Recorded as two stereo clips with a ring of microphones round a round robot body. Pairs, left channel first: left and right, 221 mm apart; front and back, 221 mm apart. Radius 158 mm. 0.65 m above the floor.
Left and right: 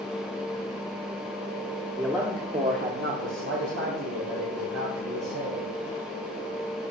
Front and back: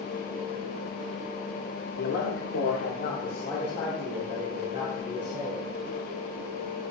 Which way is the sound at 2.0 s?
5° right.